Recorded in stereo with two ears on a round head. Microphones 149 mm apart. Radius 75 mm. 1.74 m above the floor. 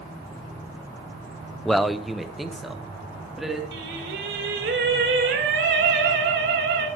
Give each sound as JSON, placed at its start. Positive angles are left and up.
{"t": 1.6, "sound": "a man speaking", "side_deg": 0, "distance_m": 0.7}
{"t": 3.7, "sound": "singing", "side_deg": -65, "distance_m": 4.0}